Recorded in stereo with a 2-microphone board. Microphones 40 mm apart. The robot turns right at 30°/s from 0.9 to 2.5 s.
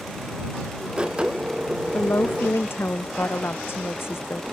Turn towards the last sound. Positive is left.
turn(degrees=75)  # may be behind; listen again after turning